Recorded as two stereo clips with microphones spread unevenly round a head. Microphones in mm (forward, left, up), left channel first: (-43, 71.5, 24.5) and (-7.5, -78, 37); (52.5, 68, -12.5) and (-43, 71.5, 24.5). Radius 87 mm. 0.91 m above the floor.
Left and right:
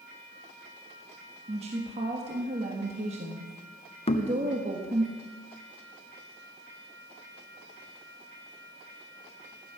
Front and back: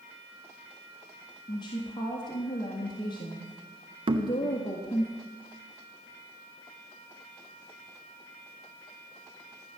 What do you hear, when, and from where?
1.5 s a woman speaking: 25° right, 1.7 m
4.1 s knocking: 140° left, 1.0 m